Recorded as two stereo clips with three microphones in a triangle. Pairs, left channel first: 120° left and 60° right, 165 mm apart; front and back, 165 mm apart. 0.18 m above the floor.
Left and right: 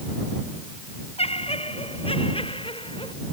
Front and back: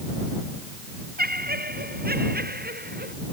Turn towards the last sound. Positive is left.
turn(degrees=175)